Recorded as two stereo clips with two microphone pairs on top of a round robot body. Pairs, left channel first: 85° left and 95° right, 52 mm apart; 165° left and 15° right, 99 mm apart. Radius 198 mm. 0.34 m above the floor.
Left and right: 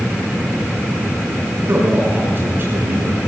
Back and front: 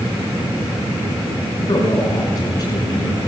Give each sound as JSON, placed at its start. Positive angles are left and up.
{"t": 1.7, "sound": "a man speaking", "azimuth_deg": -145, "distance_m": 7.5}